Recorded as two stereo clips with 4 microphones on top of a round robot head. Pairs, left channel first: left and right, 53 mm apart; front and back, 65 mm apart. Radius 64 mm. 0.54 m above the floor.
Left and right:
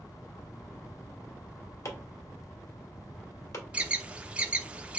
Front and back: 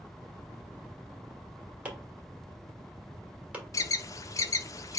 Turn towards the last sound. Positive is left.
turn(degrees=-25)